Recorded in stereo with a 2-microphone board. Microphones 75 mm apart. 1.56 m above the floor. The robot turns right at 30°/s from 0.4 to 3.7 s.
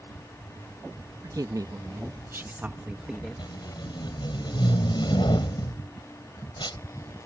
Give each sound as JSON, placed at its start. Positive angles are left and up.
{"t": 1.2, "sound": "a woman speaking", "azimuth_deg": -65}
{"t": 3.4, "sound": "tape being pulled", "side_deg": 85}